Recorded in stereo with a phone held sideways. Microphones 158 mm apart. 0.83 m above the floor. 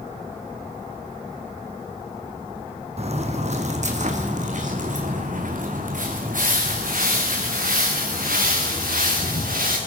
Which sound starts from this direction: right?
Footsteps, at 3.0 s.